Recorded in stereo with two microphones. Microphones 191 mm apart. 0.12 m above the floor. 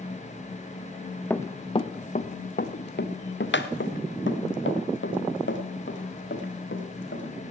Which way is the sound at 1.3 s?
10° left (ahead or behind).